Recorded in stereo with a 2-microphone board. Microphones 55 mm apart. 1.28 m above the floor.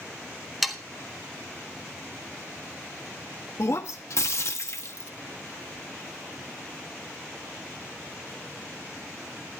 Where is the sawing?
Centre (ahead or behind), 1.3 m.